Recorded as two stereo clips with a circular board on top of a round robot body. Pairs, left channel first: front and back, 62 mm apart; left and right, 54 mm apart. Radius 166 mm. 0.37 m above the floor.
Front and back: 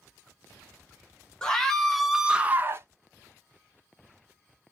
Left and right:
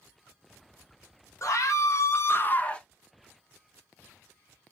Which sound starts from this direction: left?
A scream, at 1.4 s.